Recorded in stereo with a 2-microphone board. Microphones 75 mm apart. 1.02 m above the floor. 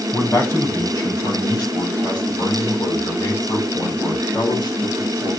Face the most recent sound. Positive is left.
turn(degrees=65)  # may be behind; listen again after turning